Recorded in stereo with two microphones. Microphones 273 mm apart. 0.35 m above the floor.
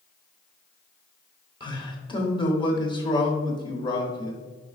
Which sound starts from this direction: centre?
A man speaking, at 1.6 s.